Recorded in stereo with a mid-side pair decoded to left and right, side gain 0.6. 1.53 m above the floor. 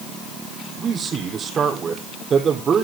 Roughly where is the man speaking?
Ahead right.